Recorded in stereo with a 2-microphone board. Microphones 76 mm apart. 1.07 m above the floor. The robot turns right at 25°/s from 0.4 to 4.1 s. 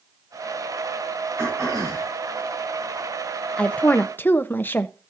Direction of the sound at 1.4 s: 35° right (ahead or behind).